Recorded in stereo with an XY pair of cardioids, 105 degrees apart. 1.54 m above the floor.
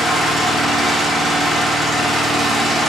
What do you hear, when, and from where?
0.0 s an engine running: 10° right, 5 m